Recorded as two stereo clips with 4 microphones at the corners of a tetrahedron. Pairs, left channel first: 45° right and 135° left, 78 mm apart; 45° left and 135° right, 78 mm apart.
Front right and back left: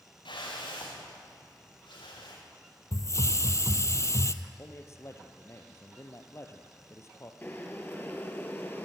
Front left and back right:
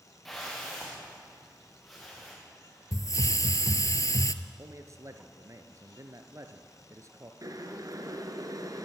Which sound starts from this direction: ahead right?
A whoosh, at 0.2 s.